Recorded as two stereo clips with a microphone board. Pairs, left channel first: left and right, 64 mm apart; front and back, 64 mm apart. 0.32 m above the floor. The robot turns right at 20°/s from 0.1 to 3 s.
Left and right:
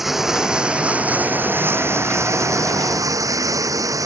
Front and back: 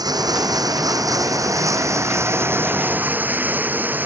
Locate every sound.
0.0 s running water: 175° right; by 4.1 s 120° right